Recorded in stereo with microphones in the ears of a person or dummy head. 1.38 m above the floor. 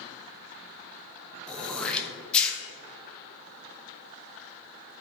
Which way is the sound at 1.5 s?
10° left (ahead or behind).